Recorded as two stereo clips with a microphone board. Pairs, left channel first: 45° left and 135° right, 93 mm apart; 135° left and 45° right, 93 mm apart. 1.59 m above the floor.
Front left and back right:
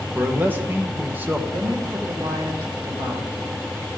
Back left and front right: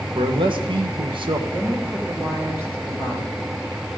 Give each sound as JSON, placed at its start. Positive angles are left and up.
{"t": 0.1, "sound": "a man speaking", "azimuth_deg": -65, "distance_m": 1.5}
{"t": 1.5, "sound": "a woman speaking", "azimuth_deg": -105, "distance_m": 4.5}